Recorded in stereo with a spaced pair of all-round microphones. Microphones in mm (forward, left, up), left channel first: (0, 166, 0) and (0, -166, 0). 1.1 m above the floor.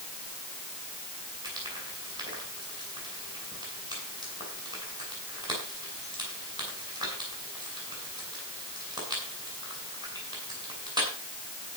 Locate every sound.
1.4 s frying: 10° right (ahead or behind), 8 m